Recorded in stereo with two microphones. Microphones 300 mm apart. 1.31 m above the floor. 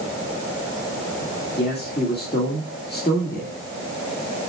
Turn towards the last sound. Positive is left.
turn(degrees=35)  # may be behind; listen again after turning